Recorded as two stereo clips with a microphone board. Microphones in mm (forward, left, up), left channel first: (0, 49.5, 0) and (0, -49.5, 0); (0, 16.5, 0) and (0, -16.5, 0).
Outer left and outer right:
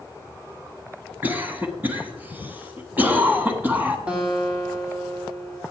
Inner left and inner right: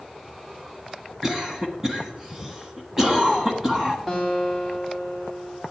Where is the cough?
20° right (ahead or behind), 1.3 m.